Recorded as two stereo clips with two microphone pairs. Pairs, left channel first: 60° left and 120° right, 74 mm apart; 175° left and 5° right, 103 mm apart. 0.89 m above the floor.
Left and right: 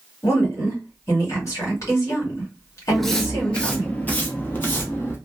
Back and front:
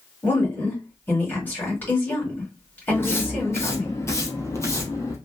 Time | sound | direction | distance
0.2 | a woman speaking | 105° left | 2 m
2.9 | footsteps | 150° left | 0.9 m